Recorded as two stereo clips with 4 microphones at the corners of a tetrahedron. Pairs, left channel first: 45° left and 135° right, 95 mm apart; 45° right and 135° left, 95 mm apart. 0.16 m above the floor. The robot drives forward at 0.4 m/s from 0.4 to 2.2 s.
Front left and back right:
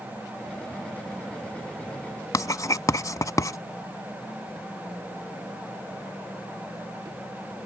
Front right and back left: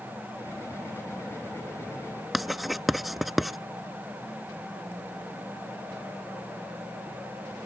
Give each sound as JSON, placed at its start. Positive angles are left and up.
{"t": 2.3, "sound": "writing", "azimuth_deg": 50}